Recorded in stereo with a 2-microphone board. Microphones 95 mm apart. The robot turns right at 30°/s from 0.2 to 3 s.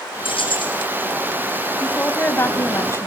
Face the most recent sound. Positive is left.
turn(degrees=55)